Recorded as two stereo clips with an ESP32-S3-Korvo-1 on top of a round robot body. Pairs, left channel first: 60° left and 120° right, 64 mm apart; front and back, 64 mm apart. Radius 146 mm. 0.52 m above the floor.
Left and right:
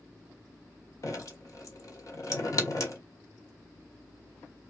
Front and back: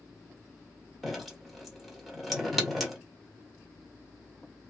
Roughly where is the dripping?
Left.